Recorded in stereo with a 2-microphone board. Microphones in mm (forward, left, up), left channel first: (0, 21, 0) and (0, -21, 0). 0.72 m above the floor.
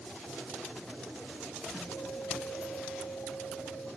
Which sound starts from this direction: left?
A guitar, at 1.7 s.